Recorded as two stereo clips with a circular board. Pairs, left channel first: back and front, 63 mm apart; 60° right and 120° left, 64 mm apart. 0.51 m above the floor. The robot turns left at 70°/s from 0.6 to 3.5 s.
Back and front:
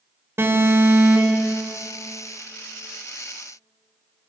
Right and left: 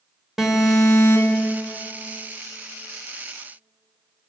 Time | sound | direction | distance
0.4 | an alarm | 40° left | 3.5 m